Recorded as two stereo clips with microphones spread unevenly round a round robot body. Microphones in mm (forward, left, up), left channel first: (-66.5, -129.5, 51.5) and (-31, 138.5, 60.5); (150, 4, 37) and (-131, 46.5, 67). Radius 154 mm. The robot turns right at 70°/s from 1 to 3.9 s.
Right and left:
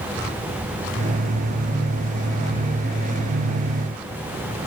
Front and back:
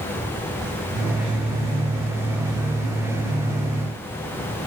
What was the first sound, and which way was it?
Only background noise.